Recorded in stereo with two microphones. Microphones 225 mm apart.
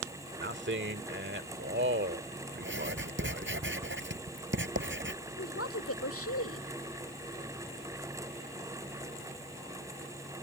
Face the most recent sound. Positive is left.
turn(degrees=85)